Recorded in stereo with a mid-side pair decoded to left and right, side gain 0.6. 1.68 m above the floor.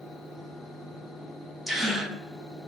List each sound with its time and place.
0.0 s a fan: 5° left, 2 m
1.7 s a gasp: 10° right, 0.9 m